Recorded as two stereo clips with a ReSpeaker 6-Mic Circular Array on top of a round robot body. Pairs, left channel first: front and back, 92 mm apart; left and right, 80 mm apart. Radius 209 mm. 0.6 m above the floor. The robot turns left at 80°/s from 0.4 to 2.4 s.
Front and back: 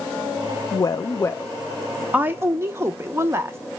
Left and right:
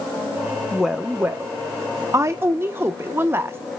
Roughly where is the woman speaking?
Ahead.